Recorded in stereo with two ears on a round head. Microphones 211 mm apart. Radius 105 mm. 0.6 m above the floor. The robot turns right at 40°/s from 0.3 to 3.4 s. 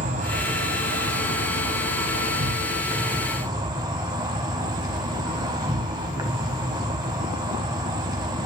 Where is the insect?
145° right, 1.3 m; by 8.4 s 20° right, 1.3 m.